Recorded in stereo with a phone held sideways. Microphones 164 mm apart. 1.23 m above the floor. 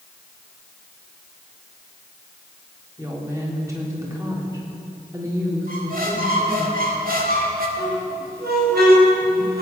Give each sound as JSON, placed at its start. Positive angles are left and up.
{"t": 3.0, "sound": "a woman speaking", "side_deg": -20, "distance_m": 3.5}
{"t": 5.7, "sound": "a squeak", "side_deg": -60, "distance_m": 2.0}
{"t": 7.8, "sound": "a squeak", "side_deg": -85, "distance_m": 5.0}